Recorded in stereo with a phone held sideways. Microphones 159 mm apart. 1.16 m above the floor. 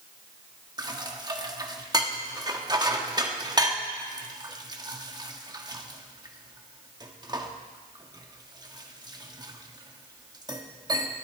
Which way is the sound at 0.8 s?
25° right (ahead or behind).